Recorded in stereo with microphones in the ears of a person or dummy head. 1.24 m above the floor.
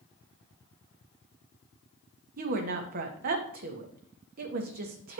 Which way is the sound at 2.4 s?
45° right (ahead or behind).